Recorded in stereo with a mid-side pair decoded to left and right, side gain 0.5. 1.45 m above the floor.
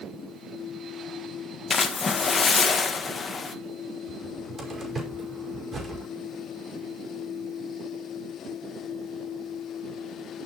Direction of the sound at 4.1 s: 35° right.